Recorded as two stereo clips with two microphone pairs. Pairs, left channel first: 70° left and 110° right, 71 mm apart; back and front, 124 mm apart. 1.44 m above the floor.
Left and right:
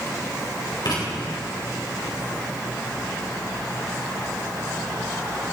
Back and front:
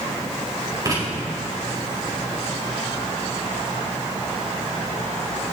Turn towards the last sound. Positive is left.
turn(degrees=60)